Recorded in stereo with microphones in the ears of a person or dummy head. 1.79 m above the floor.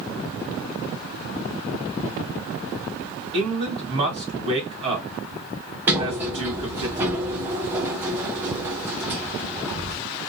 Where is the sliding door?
5° right (ahead or behind), 0.5 m.